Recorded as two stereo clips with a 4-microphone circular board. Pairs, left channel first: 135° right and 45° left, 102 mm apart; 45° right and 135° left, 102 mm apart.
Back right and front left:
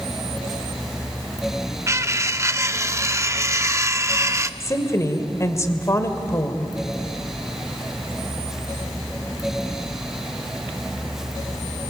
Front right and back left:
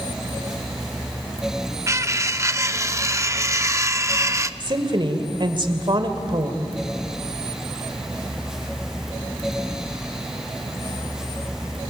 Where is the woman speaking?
165° left, 2 m.